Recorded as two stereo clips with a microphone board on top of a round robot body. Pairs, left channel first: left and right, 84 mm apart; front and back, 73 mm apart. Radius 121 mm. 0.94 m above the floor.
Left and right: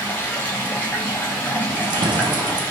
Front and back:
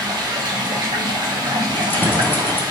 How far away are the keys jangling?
About 0.5 m.